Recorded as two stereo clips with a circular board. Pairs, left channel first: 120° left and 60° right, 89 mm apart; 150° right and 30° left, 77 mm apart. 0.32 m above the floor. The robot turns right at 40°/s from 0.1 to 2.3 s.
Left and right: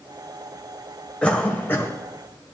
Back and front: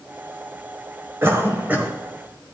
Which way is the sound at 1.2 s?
50° left.